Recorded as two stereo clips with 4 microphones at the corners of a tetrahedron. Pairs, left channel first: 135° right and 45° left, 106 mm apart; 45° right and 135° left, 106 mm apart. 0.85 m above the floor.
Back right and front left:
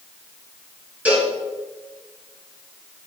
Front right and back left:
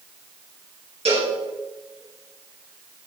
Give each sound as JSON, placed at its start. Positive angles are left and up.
{"t": 1.1, "sound": "a cowbell", "azimuth_deg": 120, "distance_m": 3.0}